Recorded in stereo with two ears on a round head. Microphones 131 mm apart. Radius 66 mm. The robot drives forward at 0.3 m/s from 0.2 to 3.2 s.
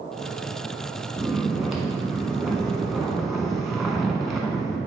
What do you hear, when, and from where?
1.2 s snoring: centre (ahead or behind), 1.4 m